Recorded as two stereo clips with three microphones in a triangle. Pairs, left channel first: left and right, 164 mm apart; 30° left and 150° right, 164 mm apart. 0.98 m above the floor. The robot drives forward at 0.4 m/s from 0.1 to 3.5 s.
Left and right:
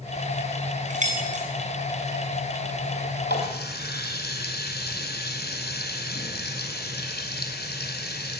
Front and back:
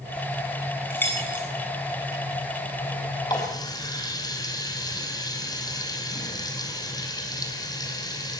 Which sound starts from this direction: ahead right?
Keys jangling, at 0.9 s.